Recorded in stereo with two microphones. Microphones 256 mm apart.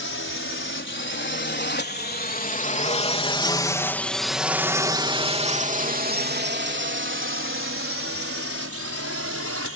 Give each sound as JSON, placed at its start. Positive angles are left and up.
{"t": 0.0, "sound": "a drone", "side_deg": 55}